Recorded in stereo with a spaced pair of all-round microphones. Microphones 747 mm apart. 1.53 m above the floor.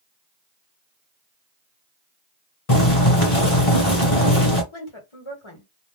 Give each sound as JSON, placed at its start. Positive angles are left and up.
{"t": 2.7, "sound": "boiling", "side_deg": 40, "distance_m": 1.4}
{"t": 4.7, "sound": "a woman speaking", "side_deg": 40, "distance_m": 1.2}